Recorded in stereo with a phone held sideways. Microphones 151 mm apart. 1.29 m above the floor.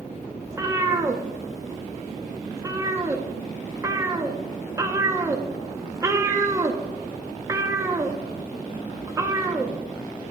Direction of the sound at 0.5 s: 20° right (ahead or behind).